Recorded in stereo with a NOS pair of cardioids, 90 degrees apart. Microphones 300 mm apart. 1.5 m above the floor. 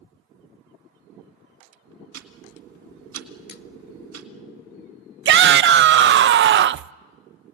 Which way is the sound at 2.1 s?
55° right.